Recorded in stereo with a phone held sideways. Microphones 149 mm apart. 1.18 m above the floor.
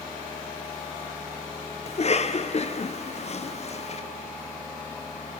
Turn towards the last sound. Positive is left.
turn(degrees=45)  # may be behind; listen again after turning